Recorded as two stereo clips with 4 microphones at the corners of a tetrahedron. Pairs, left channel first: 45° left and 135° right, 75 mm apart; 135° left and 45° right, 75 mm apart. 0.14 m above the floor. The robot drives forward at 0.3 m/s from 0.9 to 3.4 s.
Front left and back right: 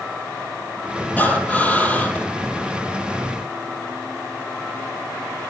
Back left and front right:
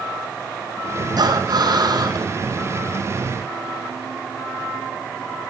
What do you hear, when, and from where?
1.2 s breathing: 25° right, 3 m; by 2.3 s 30° right, 3 m